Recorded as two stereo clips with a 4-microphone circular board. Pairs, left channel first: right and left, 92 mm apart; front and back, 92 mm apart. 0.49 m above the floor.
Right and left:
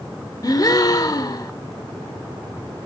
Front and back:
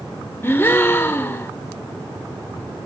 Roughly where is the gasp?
Ahead right.